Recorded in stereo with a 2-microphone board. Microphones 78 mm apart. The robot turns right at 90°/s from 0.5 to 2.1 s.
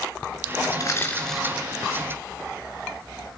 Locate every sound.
0.7 s crushing: 50° left (ahead or behind), 3 m; by 1.7 s 30° right (ahead or behind), 3 m